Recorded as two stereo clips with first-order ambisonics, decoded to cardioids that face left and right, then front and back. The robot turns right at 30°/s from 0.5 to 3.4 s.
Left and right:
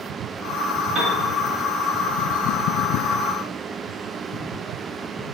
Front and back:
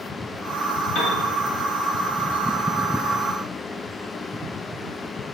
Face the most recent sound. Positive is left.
turn(degrees=45)